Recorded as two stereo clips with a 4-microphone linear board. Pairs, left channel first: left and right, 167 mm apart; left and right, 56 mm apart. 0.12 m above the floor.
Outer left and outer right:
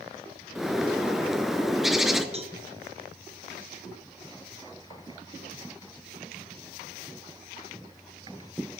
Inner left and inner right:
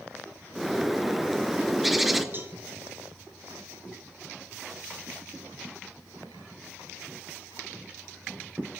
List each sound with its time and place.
0.6 s a bird: centre (ahead or behind), 0.7 m
2.3 s a cowbell: 40° right (ahead or behind), 0.9 m